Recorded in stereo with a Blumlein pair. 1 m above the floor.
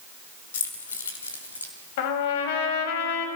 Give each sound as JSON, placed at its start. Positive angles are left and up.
{"t": 0.5, "sound": "keys jangling", "azimuth_deg": 60, "distance_m": 3.0}
{"t": 2.0, "sound": "a trumpet", "azimuth_deg": 50, "distance_m": 3.0}